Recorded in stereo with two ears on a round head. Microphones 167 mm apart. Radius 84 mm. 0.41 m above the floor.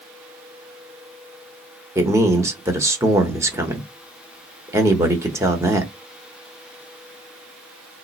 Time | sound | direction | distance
1.9 | a man speaking | 15° right (ahead or behind) | 0.9 m